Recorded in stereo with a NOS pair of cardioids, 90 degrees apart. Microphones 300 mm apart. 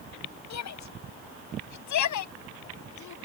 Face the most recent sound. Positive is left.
turn(degrees=75)